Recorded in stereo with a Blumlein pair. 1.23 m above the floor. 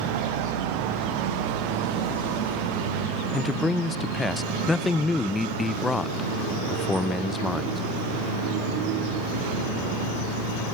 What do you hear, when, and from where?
3.3 s a man speaking: 10° left, 0.6 m